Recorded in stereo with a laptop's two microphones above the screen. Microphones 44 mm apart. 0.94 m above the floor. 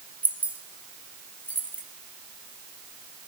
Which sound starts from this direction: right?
Keys jangling, at 0.2 s.